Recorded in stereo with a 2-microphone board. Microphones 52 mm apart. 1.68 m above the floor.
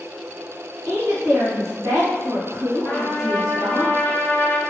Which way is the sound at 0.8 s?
75° right (ahead or behind).